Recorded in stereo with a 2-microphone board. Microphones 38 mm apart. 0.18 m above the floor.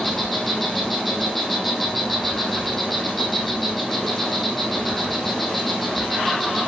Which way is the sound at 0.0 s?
5° left (ahead or behind).